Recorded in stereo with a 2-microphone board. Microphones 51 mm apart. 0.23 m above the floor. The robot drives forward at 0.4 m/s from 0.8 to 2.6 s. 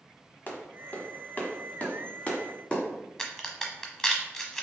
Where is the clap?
35° left (ahead or behind), 1.1 m; by 2.8 s 25° left (ahead or behind), 1.5 m.